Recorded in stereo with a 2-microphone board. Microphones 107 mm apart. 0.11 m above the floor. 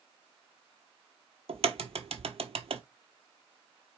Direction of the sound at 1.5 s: 70° right (ahead or behind).